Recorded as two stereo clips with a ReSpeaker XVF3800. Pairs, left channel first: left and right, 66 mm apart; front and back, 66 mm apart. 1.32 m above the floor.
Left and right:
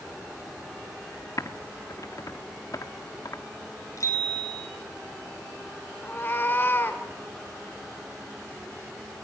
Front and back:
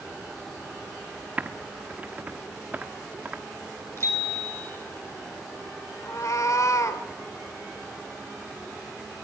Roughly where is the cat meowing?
Ahead left.